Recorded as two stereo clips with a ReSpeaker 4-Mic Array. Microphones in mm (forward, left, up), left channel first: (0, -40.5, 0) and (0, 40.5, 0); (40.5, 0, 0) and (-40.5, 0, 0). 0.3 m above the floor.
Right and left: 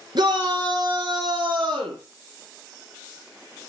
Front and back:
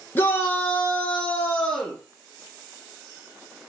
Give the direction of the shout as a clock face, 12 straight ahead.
10 o'clock.